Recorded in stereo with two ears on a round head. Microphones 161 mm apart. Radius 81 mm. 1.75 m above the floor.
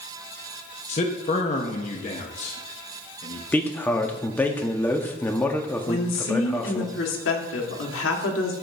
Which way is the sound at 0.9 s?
40° left (ahead or behind).